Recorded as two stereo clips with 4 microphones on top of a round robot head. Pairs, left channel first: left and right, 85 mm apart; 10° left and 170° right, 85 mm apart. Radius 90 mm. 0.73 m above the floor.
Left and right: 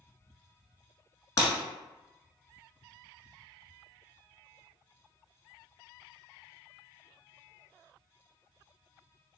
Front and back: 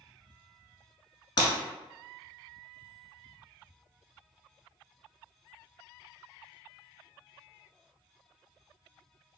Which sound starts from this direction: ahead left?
Breaking glass, at 1.4 s.